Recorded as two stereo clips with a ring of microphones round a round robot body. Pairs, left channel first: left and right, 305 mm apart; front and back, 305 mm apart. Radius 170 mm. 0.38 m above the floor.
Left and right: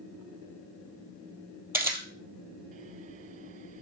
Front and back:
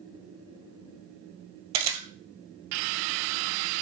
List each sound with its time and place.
1.7 s a camera shutter: 170° right, 2.0 m